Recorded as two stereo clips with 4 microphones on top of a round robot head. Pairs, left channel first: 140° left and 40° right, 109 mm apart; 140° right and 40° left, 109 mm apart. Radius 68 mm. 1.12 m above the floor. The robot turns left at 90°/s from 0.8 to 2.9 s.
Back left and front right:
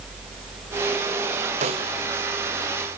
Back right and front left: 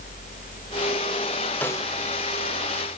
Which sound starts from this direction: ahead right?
A snare drum, at 1.6 s.